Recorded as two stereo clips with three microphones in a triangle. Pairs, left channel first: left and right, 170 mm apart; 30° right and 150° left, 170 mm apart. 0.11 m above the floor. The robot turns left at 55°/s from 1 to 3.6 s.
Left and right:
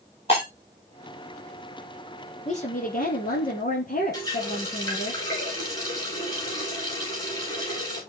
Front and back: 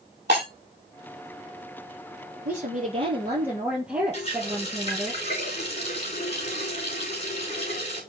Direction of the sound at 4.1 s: 20° left.